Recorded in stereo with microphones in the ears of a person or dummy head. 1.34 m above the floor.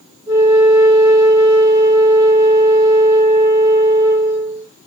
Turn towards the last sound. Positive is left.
turn(degrees=-15)  # may be behind; listen again after turning